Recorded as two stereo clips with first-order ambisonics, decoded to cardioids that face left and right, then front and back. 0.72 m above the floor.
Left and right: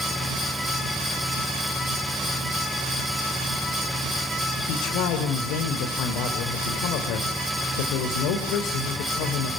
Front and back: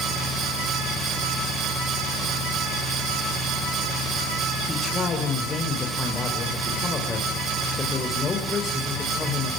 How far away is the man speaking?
About 2.5 m.